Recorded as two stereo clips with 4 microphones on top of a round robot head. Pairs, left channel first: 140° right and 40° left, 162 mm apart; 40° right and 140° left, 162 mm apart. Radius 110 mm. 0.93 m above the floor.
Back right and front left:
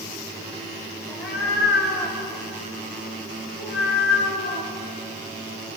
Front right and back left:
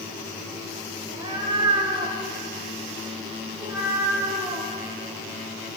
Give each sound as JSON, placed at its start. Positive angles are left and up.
{"t": 1.1, "sound": "a cat meowing", "azimuth_deg": -160, "distance_m": 6.0}